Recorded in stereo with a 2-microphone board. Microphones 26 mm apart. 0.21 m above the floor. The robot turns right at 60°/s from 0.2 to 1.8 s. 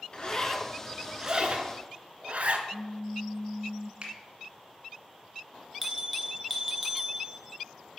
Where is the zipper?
30° left (ahead or behind), 0.8 m; by 2.6 s 60° right (ahead or behind), 0.8 m.